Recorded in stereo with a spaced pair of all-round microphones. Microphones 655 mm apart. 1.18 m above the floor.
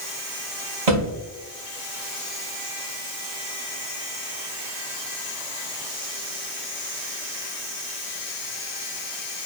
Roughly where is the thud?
Right.